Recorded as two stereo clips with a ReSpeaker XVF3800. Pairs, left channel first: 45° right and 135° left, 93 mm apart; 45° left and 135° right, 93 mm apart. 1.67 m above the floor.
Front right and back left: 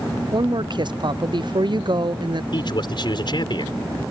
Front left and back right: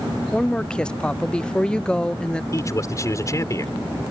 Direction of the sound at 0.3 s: 125° left.